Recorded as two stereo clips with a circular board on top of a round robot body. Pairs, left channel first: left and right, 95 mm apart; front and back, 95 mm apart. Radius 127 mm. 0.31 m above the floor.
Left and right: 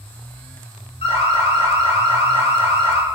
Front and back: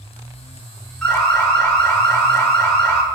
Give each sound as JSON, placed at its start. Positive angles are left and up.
{"t": 1.0, "sound": "an alarm", "azimuth_deg": 80, "distance_m": 7.0}